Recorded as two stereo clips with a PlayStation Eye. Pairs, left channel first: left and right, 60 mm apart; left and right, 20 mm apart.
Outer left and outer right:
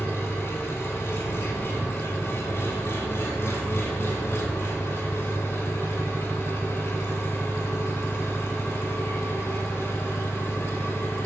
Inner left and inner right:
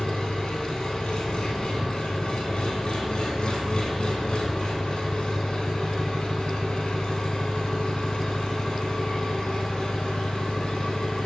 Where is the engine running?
45° left (ahead or behind), 2 m.